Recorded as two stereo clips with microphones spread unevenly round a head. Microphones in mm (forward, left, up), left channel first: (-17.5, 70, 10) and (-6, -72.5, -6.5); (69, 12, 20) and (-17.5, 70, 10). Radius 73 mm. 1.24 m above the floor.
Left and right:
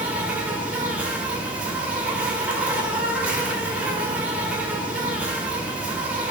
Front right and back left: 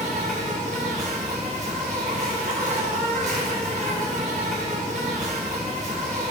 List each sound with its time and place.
0.0 s an insect: 170° right, 1.3 m